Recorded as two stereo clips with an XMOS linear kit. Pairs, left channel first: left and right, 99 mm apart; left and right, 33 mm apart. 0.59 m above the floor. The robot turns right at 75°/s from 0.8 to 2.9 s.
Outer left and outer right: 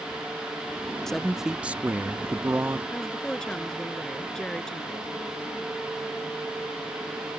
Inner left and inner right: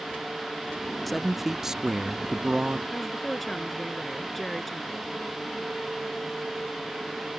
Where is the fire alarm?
No fire alarm in this recording.